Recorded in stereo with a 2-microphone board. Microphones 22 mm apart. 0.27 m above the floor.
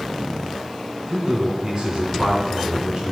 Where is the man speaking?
50° right (ahead or behind), 2.5 m; by 3.1 s 35° right (ahead or behind), 3 m.